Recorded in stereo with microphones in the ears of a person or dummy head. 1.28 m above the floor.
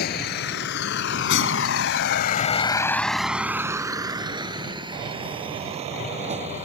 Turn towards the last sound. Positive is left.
turn(degrees=-30)  # may be behind; listen again after turning